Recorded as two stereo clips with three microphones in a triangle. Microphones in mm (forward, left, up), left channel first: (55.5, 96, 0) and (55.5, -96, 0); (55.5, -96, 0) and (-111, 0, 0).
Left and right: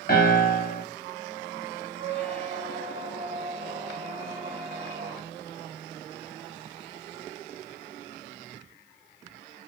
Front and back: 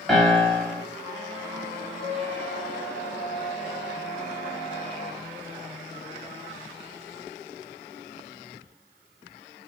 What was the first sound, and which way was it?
A piano, 60° left.